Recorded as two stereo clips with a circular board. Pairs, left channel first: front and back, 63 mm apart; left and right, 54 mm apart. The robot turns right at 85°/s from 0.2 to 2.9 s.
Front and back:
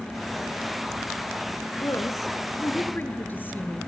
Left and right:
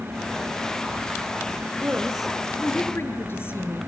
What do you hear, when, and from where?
1.8 s a woman speaking: 40° right, 2.5 m; by 3.8 s 55° left, 2.5 m